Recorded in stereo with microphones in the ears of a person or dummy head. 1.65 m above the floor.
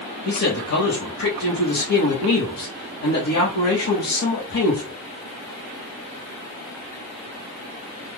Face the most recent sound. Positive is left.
turn(degrees=70)  # may be behind; listen again after turning